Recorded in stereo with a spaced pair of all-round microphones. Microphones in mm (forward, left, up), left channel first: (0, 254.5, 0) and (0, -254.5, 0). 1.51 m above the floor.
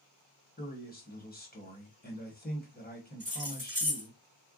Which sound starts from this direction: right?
Keys jangling, at 3.2 s.